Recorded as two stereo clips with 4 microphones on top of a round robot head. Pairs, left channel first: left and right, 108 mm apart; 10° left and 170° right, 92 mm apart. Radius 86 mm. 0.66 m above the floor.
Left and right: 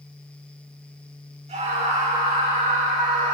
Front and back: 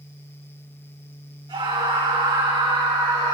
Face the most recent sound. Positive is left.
turn(degrees=-115)